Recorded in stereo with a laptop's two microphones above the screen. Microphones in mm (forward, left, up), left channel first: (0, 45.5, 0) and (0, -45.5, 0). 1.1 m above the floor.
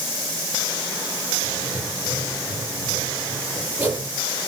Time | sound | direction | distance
1.4 | writing | 20° right (ahead or behind) | 7.5 m